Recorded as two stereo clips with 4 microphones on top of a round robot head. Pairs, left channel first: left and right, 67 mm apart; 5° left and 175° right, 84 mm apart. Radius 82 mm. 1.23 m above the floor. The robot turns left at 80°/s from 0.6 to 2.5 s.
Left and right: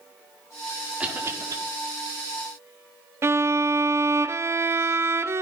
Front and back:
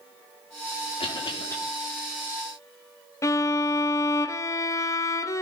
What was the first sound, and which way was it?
A cough, 15° right.